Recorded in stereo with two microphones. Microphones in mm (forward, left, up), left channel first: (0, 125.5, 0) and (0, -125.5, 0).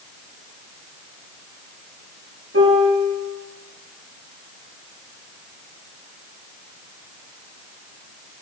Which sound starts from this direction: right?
A piano, at 2.5 s.